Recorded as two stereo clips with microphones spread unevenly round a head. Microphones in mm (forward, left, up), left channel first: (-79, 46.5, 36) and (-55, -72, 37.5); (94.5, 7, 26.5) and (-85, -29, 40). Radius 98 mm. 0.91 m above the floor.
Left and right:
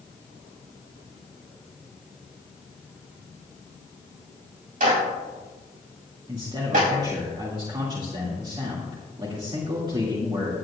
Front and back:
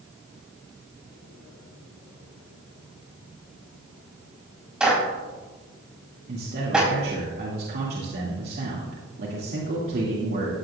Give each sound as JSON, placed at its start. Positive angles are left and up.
{"t": 4.8, "sound": "a clap", "azimuth_deg": -85, "distance_m": 4.0}
{"t": 6.3, "sound": "a man speaking", "azimuth_deg": -130, "distance_m": 2.0}